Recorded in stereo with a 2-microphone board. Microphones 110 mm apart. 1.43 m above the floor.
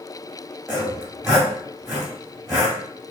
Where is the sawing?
5° right (ahead or behind), 1.3 m.